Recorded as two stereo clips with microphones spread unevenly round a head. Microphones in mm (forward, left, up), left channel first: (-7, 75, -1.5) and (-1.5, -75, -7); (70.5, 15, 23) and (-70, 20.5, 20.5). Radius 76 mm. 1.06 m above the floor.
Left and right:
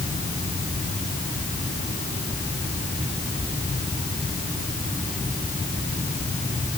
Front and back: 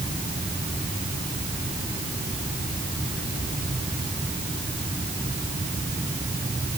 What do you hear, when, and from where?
Only background noise.